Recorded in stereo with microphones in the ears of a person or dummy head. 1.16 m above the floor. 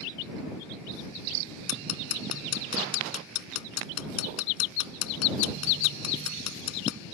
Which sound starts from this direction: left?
Ticking, at 1.7 s.